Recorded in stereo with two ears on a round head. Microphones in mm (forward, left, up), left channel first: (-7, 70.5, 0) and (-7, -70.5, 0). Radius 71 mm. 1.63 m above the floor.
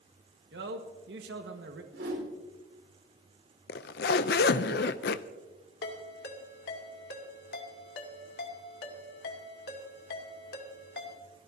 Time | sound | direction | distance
0.5 | a man speaking | 70° right (ahead or behind) | 1.5 m
1.9 | a whoosh | 70° right (ahead or behind) | 5 m
3.7 | a zipper | 65° left (ahead or behind) | 0.6 m
5.8 | a ringtone | 65° left (ahead or behind) | 2.5 m